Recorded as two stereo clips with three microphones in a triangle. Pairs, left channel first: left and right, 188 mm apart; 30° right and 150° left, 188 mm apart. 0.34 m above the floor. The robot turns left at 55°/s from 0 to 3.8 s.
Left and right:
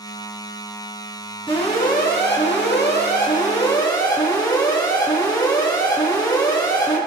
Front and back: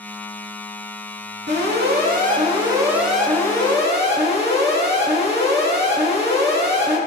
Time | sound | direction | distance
1.5 | an alarm | 150° left | 5 m